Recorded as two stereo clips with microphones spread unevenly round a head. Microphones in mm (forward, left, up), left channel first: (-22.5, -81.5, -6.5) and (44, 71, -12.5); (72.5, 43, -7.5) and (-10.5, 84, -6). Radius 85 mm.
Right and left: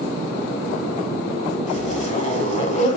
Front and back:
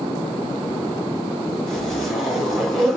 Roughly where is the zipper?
Right.